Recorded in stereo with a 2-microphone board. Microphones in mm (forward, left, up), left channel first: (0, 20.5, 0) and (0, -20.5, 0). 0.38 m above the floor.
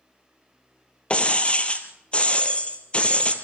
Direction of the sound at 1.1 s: 30° left (ahead or behind).